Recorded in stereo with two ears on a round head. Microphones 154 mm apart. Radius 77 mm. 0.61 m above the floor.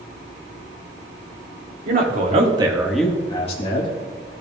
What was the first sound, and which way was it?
A man speaking, 55° right (ahead or behind).